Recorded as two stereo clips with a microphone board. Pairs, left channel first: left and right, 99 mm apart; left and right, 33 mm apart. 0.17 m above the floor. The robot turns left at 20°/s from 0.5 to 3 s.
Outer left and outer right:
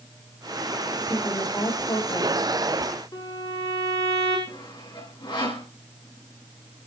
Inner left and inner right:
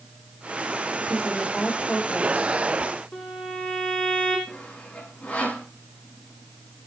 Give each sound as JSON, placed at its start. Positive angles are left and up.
{"t": 1.0, "sound": "a woman speaking", "azimuth_deg": 155, "distance_m": 6.0}
{"t": 3.1, "sound": "a violin", "side_deg": 35, "distance_m": 8.0}
{"t": 4.5, "sound": "sawing", "side_deg": 50, "distance_m": 7.5}